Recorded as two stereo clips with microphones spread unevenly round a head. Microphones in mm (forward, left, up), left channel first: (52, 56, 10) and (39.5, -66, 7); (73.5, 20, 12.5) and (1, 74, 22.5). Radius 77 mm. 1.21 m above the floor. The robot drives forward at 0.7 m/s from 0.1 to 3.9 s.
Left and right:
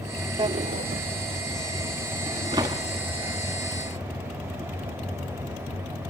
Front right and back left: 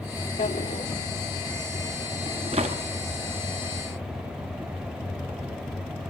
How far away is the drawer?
About 0.5 m.